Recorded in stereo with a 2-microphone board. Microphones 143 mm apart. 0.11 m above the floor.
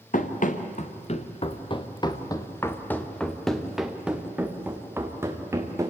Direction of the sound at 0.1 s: 70° left (ahead or behind).